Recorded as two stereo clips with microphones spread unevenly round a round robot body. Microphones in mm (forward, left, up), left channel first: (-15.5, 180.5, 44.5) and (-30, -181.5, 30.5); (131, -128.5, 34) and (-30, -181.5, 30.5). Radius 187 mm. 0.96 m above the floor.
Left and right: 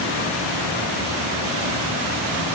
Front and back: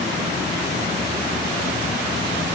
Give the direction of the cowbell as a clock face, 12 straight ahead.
I don't hear a cowbell.